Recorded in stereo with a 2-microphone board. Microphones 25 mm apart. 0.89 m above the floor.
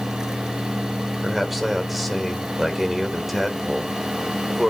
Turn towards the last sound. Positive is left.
turn(degrees=-5)  # may be behind; listen again after turning